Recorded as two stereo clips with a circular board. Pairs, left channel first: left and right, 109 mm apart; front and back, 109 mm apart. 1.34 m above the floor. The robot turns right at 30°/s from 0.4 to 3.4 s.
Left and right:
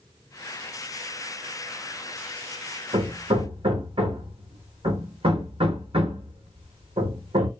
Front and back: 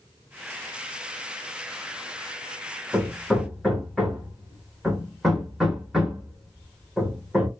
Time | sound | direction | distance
2.9 | hammering | 105° right | 0.9 m